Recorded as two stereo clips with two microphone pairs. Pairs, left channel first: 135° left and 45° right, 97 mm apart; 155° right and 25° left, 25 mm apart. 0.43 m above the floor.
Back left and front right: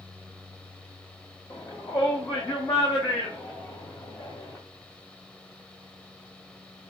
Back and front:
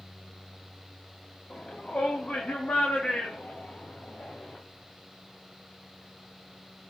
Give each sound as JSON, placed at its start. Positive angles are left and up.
{"t": 1.5, "sound": "a shout", "azimuth_deg": 180, "distance_m": 3.0}